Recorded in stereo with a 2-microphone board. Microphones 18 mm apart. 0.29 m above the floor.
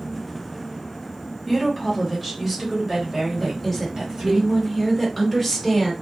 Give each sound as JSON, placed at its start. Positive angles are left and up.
{"t": 1.5, "sound": "a woman speaking", "side_deg": 20, "distance_m": 1.2}
{"t": 3.4, "sound": "a woman speaking", "side_deg": 0, "distance_m": 1.4}